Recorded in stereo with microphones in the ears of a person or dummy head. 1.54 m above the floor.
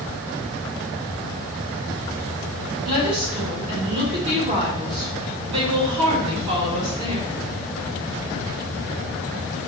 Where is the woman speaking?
30° right (ahead or behind), 4 m.